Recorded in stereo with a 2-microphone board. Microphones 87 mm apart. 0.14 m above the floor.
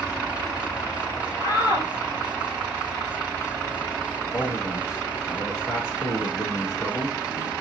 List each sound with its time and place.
1.4 s a shout: 50° left (ahead or behind), 3 m
4.3 s a man speaking: 40° left (ahead or behind), 1.5 m